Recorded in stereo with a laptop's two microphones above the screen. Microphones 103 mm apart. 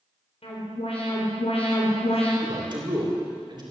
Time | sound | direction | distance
0.4 | an alarm | 80° left | 4.5 m
2.4 | a man speaking | 45° right (ahead or behind) | 3 m